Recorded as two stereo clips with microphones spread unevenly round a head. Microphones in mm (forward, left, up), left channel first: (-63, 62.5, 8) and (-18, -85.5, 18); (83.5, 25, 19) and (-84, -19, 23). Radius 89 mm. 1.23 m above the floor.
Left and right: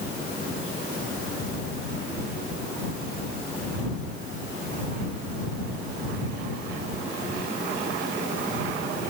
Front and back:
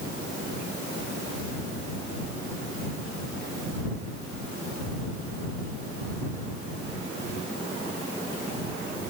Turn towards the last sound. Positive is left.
No sound to turn to.